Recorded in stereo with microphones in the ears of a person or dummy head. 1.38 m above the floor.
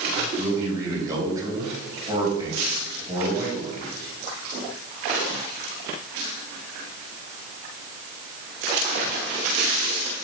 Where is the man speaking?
20° right (ahead or behind), 3.5 m.